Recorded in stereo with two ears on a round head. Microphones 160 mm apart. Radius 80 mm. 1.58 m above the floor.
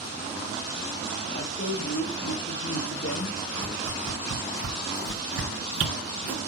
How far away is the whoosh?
About 1.5 m.